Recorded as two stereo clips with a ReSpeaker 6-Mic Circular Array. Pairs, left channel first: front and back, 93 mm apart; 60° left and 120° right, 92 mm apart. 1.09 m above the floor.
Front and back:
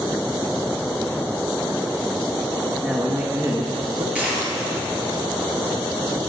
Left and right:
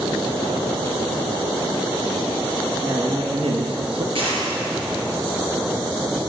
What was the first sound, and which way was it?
A man speaking, 100° right.